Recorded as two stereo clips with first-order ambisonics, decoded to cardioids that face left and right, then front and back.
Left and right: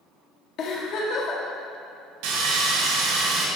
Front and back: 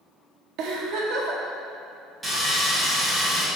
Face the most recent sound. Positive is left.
turn(degrees=-95)